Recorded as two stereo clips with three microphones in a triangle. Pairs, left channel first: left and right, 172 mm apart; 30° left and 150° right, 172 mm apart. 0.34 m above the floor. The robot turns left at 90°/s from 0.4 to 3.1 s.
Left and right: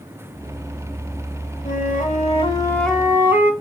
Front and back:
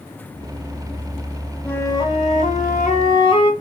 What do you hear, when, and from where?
1.6 s a flute: 115° left, 1.4 m; by 3.5 s 20° right, 1.4 m